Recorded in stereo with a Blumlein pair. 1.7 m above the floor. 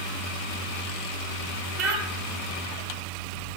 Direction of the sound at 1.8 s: 20° right.